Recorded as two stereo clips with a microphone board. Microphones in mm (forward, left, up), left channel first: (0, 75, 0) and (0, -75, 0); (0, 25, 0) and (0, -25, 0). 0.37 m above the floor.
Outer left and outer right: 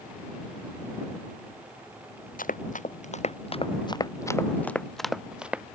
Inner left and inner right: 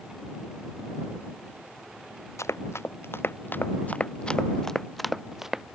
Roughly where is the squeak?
No squeak in this recording.